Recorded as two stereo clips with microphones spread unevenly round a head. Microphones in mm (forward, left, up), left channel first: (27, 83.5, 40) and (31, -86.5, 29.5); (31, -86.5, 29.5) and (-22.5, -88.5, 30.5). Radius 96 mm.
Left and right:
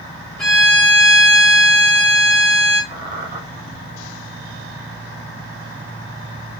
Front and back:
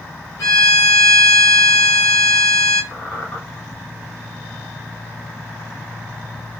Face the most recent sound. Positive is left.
turn(degrees=-55)